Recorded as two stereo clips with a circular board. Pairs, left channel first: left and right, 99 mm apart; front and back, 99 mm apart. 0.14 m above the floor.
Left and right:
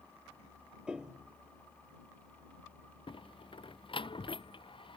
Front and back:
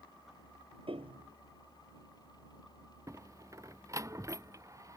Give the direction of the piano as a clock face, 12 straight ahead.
6 o'clock.